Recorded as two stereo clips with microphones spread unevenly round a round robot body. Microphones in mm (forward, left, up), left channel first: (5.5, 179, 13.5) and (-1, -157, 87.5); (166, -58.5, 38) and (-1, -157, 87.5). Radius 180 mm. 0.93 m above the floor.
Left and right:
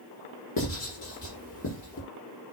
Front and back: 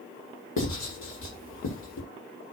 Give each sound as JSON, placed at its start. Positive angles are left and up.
{"t": 0.6, "sound": "writing", "azimuth_deg": 35, "distance_m": 6.0}